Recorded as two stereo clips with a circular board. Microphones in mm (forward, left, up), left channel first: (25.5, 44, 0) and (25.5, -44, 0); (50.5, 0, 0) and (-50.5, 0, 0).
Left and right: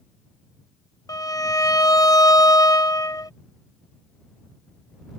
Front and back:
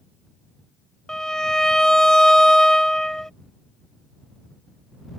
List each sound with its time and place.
1.1 s a violin: 85° left